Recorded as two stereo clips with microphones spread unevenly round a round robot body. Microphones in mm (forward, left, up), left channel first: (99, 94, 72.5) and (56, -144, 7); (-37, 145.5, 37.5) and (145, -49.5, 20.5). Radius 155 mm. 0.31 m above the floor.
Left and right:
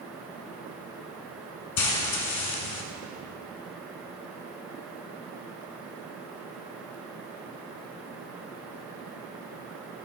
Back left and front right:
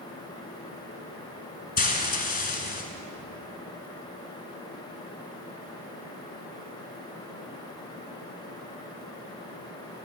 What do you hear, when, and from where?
1.8 s frying: 75° left, 1.5 m